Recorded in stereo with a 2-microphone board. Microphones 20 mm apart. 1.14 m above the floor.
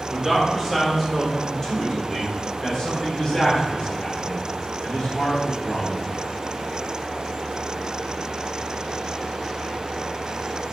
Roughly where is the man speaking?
Centre.